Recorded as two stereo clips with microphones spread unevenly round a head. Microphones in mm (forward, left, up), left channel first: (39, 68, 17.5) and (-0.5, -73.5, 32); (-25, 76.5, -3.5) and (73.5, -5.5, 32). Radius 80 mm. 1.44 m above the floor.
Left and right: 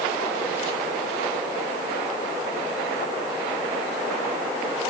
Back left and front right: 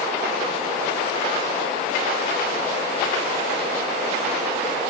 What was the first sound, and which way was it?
Only background noise.